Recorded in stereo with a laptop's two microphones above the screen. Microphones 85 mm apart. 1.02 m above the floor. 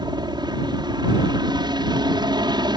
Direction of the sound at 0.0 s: 60° right (ahead or behind).